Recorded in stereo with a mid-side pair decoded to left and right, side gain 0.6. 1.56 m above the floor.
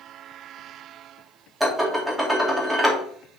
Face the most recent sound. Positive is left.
turn(degrees=-10)